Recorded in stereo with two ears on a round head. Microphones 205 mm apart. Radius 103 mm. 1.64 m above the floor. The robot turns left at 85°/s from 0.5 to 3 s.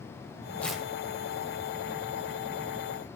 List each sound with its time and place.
0.6 s tearing paper: 10° left (ahead or behind), 0.7 m; by 0.9 s 15° right (ahead or behind), 0.7 m